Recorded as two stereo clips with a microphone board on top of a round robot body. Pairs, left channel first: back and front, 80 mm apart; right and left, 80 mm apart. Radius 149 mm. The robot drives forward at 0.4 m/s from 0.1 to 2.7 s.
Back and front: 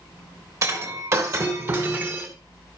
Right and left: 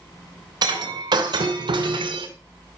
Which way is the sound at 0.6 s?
50° left.